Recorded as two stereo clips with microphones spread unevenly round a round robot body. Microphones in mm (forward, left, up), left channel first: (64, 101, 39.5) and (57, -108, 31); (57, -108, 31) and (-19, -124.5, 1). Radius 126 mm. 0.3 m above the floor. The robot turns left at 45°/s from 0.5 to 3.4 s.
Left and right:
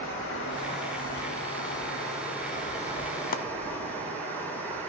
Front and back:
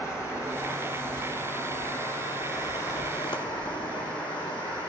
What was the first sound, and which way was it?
Running water, 135° left.